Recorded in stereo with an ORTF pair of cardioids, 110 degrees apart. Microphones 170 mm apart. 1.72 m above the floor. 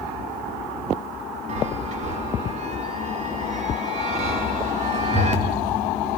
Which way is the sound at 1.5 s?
45° right.